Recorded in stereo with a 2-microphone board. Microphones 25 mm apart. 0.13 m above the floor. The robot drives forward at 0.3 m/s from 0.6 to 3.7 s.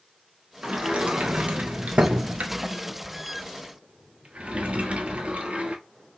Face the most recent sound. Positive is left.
turn(degrees=-50)  # may be behind; listen again after turning